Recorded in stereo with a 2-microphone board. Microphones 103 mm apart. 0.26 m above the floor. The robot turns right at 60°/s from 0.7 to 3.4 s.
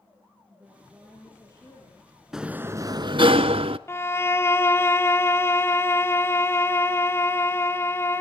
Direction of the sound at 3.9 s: 25° left (ahead or behind).